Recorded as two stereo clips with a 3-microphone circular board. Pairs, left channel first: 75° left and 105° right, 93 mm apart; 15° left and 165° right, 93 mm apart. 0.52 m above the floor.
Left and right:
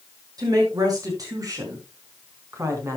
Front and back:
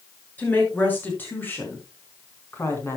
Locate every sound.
0.4 s a woman speaking: 60° right, 6.5 m; by 3.0 s 45° right, 4.5 m